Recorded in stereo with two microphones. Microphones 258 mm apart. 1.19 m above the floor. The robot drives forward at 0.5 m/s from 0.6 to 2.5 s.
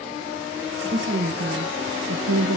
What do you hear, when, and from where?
0.9 s a woman speaking: 40° right (ahead or behind), 1.1 m; by 2.6 s 65° right (ahead or behind), 0.7 m